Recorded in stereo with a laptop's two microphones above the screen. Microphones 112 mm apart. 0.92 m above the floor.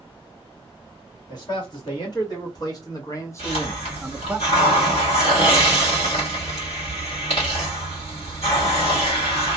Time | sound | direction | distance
1.3 | a man speaking | 45° left (ahead or behind) | 1.9 m
3.4 | a hiss | 75° left (ahead or behind) | 1.8 m